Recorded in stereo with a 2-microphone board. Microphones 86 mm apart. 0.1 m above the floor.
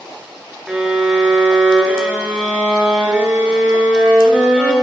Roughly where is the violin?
Centre.